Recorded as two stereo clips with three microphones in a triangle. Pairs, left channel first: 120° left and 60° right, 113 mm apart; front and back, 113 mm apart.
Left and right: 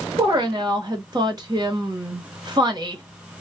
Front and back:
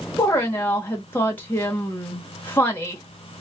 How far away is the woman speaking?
About 1.0 m.